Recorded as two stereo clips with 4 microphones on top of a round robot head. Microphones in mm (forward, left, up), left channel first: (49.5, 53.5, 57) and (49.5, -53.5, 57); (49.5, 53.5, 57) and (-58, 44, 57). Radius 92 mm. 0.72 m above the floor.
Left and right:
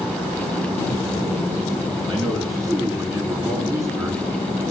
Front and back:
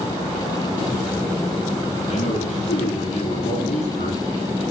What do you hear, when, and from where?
2.1 s a man speaking: 35° right, 9.5 m; by 4.6 s 25° right, 10.5 m